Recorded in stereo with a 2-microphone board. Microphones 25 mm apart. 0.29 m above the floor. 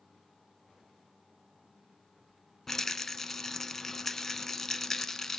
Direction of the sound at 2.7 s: 15° left (ahead or behind).